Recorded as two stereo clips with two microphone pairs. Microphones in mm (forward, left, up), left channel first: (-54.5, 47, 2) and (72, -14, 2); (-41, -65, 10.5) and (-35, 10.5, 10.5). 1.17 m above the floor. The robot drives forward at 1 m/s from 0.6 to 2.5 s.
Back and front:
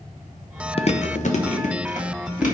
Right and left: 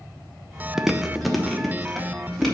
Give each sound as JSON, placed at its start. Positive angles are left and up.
{"t": 0.8, "sound": "chewing", "azimuth_deg": 170, "distance_m": 0.5}